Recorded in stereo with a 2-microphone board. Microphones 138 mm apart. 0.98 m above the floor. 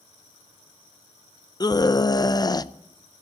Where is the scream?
30° left (ahead or behind), 0.6 m.